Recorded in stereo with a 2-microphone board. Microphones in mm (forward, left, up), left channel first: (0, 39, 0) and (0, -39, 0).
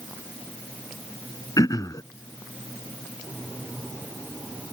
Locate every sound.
1.6 s throat clearing: 50° left (ahead or behind)